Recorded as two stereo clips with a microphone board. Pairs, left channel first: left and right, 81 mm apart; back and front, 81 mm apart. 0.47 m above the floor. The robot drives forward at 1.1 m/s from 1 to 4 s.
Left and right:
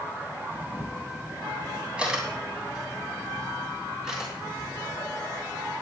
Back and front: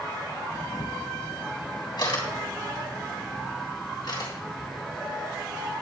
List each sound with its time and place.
0.5 s a camera shutter: 160° right, 2.5 m; by 4.7 s 170° right, 5.5 m